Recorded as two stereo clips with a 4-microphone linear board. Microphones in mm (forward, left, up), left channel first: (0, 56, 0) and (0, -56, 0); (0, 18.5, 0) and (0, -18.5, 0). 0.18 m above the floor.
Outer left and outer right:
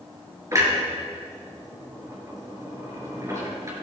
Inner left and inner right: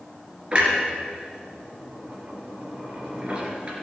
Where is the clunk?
30° right (ahead or behind), 3 m.